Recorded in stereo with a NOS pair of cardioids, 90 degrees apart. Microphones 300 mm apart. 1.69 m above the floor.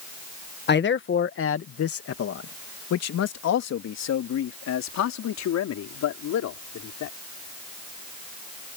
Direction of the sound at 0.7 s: 35° left.